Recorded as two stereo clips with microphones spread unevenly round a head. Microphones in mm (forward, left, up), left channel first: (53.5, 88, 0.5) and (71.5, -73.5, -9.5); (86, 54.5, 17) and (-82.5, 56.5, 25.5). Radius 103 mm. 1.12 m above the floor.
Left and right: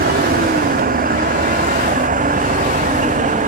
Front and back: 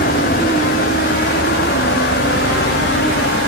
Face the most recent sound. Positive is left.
turn(degrees=-45)